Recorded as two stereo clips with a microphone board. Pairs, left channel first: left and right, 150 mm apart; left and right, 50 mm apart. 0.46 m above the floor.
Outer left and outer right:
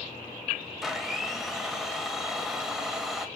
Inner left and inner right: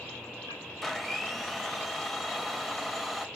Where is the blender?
5° right (ahead or behind), 0.6 m.